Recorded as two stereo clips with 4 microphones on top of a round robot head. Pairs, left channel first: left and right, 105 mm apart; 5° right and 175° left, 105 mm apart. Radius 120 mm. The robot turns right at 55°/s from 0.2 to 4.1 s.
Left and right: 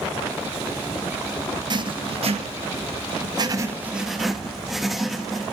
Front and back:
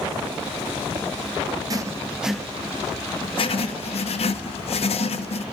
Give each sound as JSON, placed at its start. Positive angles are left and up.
{"t": 1.7, "sound": "writing", "azimuth_deg": -135, "distance_m": 1.8}